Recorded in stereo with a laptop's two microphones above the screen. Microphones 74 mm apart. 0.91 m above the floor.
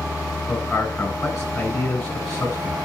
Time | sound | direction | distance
0.5 | a man speaking | 40° left (ahead or behind) | 9 m